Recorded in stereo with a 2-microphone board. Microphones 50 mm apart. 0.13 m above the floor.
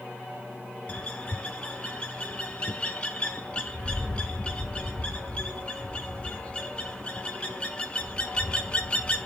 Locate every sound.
0.9 s a bird: 25° left (ahead or behind), 0.6 m